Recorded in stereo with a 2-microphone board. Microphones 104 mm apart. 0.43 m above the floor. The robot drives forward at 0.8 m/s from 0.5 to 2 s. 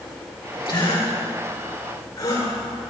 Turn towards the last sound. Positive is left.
turn(degrees=35)  # may be behind; listen again after turning